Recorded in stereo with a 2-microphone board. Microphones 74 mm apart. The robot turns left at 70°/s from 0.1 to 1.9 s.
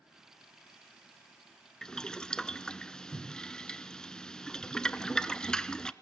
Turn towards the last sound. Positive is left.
turn(degrees=10)  # may be behind; listen again after turning